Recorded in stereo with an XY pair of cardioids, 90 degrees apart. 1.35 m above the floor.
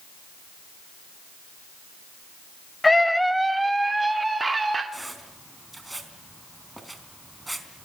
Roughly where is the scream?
Ahead.